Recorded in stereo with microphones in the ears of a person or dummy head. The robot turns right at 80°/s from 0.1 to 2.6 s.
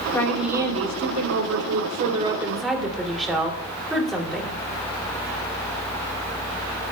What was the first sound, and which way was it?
A woman speaking, 170° left.